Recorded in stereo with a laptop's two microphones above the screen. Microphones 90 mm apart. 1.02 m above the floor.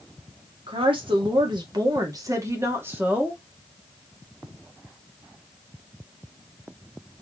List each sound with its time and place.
0.7 s a woman speaking: 70° right (ahead or behind), 1.9 m; by 3.4 s 15° right (ahead or behind), 1.9 m